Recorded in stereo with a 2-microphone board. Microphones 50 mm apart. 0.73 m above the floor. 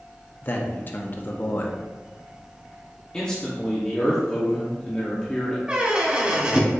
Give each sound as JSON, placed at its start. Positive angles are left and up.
{"t": 0.4, "sound": "a man speaking", "side_deg": 40, "distance_m": 0.7}
{"t": 3.1, "sound": "a man speaking", "side_deg": 15, "distance_m": 0.9}
{"t": 5.7, "sound": "a squeak", "side_deg": -25, "distance_m": 0.7}